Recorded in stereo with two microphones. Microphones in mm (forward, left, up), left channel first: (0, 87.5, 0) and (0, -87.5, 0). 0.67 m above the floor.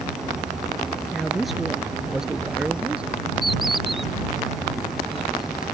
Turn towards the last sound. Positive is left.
turn(degrees=0)  # may be behind; listen again after turning